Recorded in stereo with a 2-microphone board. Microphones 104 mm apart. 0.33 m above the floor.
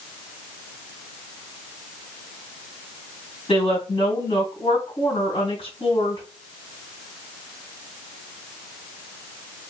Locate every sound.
3.5 s a woman speaking: 60° left (ahead or behind), 2.5 m